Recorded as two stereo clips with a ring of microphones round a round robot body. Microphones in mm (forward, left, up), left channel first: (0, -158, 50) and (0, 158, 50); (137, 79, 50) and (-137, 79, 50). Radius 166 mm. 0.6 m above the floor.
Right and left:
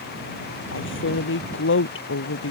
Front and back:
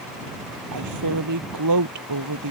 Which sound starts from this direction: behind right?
A woman speaking, at 0.7 s.